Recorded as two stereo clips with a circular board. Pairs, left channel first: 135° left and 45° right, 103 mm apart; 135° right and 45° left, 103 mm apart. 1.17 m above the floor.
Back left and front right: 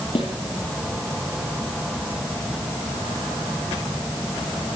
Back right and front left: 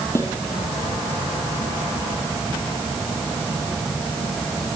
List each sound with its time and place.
0.1 s a snare drum: 165° left, 8 m